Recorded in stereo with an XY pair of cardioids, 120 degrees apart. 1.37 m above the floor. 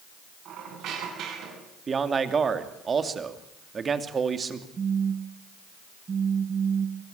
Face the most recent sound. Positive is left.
turn(degrees=-35)